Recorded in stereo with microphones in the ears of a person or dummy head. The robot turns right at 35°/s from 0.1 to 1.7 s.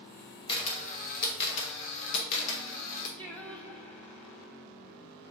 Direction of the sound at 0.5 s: 30° left (ahead or behind).